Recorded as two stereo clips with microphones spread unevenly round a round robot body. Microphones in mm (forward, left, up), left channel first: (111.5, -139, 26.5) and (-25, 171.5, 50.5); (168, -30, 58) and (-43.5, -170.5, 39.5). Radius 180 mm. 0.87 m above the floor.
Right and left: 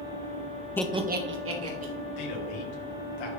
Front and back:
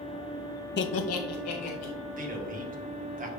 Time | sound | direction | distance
0.8 | laughter | 5° left | 0.6 m
2.2 | a man speaking | 90° right | 2.0 m